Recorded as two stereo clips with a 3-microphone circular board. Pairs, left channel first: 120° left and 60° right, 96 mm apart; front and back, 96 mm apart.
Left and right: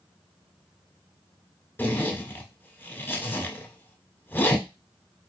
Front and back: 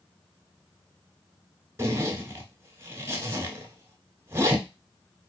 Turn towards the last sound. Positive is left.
turn(degrees=160)